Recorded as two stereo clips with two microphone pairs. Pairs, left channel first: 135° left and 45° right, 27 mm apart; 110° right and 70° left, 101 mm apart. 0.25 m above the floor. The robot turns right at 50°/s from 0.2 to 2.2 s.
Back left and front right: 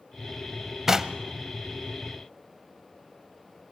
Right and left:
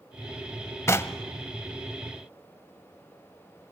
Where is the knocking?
90° right, 0.8 m; by 1.2 s 75° right, 0.8 m.